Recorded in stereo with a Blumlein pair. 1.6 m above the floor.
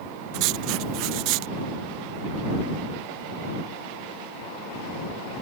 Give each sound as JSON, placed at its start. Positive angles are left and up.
{"t": 0.3, "sound": "writing", "azimuth_deg": -40}